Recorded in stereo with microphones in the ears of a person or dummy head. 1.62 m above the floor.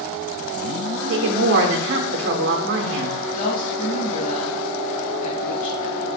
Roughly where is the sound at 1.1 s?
Right.